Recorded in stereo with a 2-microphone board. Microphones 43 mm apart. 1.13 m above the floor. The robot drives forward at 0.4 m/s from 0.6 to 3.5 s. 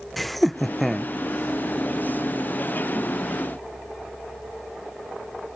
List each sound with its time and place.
0.2 s laughter: 5° left (ahead or behind); by 1.1 s centre (ahead or behind)